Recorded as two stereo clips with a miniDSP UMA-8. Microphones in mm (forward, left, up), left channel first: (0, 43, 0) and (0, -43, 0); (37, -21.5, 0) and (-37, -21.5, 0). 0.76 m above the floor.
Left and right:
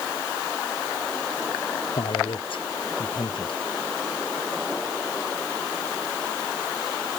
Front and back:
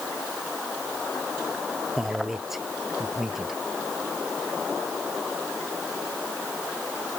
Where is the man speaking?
95° left.